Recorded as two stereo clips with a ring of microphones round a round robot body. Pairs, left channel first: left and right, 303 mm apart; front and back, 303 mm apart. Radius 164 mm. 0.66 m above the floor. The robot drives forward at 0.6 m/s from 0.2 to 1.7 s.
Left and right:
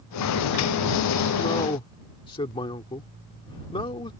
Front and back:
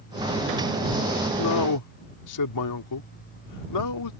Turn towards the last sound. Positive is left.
turn(degrees=15)